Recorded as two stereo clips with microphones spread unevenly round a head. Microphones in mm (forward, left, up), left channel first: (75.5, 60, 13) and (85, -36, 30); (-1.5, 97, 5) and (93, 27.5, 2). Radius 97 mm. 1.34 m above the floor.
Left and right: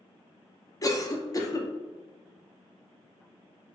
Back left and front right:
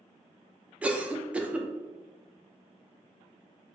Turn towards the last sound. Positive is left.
turn(degrees=45)